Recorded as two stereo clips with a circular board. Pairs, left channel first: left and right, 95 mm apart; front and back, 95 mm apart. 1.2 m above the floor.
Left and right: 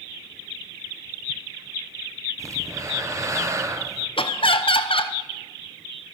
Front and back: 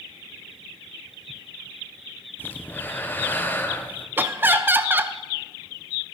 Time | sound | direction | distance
2.4 | breathing | 60° right | 0.6 m
4.2 | laughter | 110° left | 0.6 m